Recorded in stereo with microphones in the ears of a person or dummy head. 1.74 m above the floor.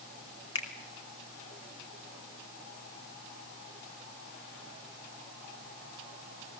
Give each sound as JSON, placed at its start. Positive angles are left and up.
{"t": 0.6, "sound": "a finger snap", "side_deg": 30, "distance_m": 3.0}